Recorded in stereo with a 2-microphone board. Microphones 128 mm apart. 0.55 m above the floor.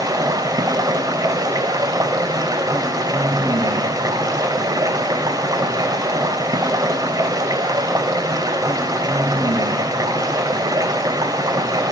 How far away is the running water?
About 0.7 m.